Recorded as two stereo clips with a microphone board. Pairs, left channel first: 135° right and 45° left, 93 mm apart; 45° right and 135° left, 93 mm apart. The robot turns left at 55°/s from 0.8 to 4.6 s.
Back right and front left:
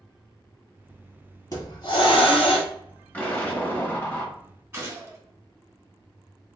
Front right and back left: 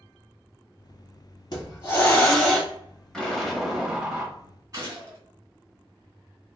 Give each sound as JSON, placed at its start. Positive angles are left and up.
{"t": 1.5, "sound": "a hiss", "azimuth_deg": -85, "distance_m": 1.0}
{"t": 3.1, "sound": "an explosion", "azimuth_deg": -110, "distance_m": 0.8}
{"t": 4.7, "sound": "a gunshot", "azimuth_deg": 95, "distance_m": 1.8}